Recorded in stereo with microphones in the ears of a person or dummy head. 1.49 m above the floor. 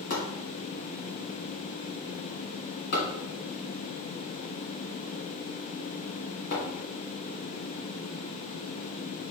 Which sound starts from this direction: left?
Chopping, at 0.1 s.